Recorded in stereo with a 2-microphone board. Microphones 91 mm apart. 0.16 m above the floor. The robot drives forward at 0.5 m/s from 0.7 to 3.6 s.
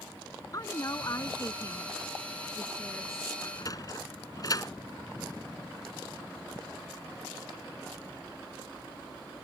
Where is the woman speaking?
40° left (ahead or behind); by 3.3 s 30° left (ahead or behind).